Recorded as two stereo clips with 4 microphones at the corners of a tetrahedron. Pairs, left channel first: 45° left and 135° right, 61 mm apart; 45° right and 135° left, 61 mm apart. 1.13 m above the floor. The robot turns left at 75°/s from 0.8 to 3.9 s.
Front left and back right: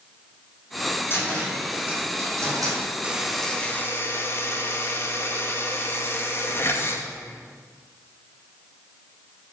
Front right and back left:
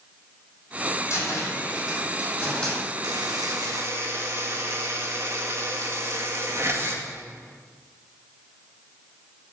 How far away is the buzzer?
About 1.9 m.